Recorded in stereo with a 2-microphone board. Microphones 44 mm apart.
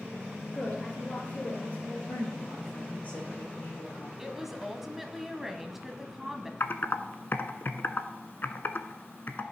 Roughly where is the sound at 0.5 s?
Left.